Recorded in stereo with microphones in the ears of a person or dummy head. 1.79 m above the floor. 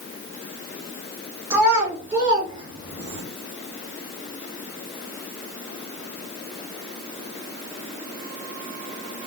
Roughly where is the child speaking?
Right.